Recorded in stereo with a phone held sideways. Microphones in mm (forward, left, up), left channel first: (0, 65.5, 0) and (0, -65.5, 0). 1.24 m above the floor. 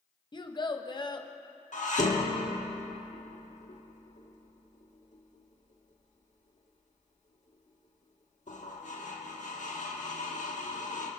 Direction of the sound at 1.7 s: 65° left (ahead or behind).